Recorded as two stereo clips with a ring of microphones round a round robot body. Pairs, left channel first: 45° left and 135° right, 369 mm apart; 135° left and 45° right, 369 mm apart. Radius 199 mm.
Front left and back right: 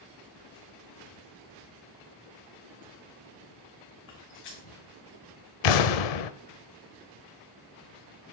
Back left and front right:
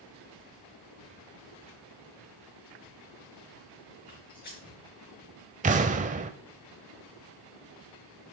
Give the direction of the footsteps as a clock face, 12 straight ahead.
10 o'clock.